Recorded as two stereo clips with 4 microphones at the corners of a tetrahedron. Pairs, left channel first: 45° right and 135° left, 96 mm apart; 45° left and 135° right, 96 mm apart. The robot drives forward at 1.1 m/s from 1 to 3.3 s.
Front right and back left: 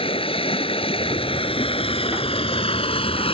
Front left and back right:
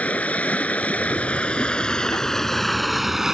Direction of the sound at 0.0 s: 30° right.